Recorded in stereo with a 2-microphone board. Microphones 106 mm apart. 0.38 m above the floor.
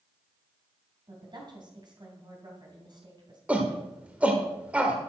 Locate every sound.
1.1 s a woman speaking: 45° right (ahead or behind), 3 m
3.5 s a shout: 15° right (ahead or behind), 1.3 m